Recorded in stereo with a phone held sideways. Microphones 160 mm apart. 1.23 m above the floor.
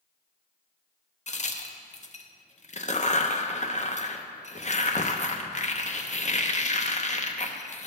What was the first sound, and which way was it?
A crack, 45° left (ahead or behind).